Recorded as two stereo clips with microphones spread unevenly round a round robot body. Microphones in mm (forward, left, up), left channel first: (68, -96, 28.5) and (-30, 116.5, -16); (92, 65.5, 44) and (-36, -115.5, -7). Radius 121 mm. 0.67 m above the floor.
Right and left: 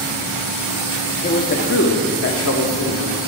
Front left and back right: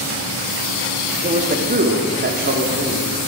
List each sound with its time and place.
1.2 s a man speaking: 120° right, 1.0 m; by 3.1 s 95° right, 2.0 m